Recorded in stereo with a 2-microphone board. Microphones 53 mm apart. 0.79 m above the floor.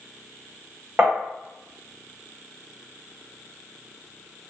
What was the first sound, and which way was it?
Tapping, 30° right (ahead or behind).